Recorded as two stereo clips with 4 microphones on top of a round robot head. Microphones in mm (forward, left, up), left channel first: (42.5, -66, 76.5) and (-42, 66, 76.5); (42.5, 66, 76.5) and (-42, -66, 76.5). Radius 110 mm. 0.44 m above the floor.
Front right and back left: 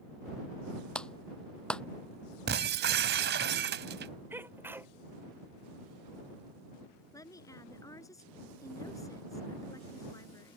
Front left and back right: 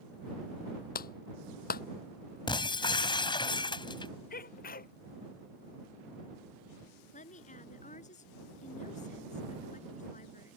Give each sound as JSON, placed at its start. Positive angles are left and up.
{"t": 0.9, "sound": "a clap", "azimuth_deg": 25}
{"t": 2.5, "sound": "breaking glass", "azimuth_deg": 120}
{"t": 4.3, "sound": "a sneeze", "azimuth_deg": 45}
{"t": 7.1, "sound": "a woman speaking", "azimuth_deg": 15}